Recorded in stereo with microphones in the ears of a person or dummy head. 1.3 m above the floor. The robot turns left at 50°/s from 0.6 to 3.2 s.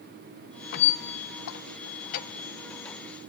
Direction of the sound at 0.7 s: 55° left (ahead or behind).